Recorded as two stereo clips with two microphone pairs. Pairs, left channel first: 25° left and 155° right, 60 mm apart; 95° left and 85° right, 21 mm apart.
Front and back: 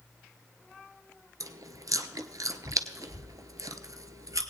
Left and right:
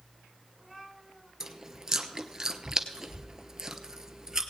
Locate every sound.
1.4 s chewing: 145° right, 0.8 m